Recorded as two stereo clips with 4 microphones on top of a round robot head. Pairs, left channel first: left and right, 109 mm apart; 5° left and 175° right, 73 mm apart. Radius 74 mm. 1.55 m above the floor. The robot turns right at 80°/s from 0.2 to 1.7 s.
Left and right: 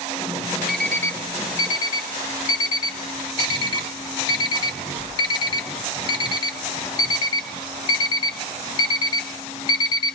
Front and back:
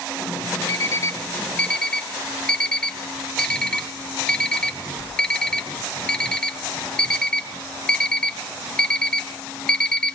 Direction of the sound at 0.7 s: 5° right.